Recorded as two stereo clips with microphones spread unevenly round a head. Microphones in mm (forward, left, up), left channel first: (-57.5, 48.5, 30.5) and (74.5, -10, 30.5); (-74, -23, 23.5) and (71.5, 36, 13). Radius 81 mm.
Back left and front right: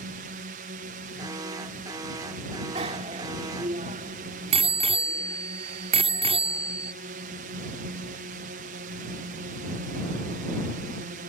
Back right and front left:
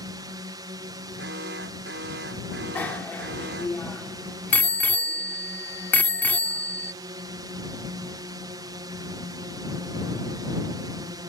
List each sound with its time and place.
0.0 s a drone: 40° right
1.2 s an alarm: 40° left
2.8 s a bicycle bell: 80° right